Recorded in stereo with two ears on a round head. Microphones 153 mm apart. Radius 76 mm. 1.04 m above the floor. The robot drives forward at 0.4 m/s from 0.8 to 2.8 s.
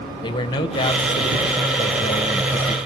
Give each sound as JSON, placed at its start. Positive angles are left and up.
{"t": 0.2, "sound": "a man speaking", "side_deg": 25, "distance_m": 0.9}